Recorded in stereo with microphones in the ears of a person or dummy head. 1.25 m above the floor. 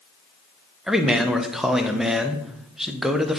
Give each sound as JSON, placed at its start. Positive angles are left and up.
{"t": 0.9, "sound": "a man speaking", "side_deg": -5, "distance_m": 0.5}